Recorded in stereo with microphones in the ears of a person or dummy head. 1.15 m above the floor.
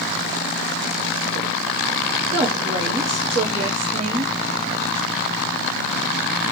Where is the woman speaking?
30° right (ahead or behind), 0.5 m.